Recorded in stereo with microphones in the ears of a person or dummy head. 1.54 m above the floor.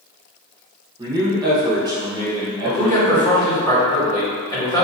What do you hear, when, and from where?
1.0 s a man speaking: 20° right (ahead or behind), 1.1 m
2.6 s a man speaking: 25° left (ahead or behind), 1.9 m